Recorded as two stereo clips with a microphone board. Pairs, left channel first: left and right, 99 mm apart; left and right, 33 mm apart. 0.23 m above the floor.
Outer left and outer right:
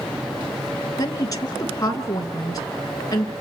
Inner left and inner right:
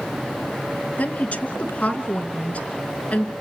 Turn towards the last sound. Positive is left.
turn(degrees=40)  # may be behind; listen again after turning